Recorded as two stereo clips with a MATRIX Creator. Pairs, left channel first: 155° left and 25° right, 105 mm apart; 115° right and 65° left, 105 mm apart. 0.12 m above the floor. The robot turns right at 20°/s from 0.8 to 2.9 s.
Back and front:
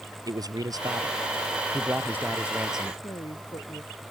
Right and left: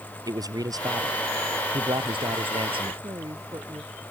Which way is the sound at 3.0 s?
115° left.